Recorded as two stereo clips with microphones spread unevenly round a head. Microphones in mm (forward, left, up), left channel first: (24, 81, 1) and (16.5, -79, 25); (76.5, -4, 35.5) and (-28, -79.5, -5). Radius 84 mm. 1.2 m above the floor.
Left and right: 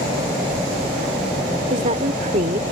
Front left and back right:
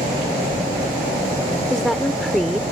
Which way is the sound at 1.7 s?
50° right.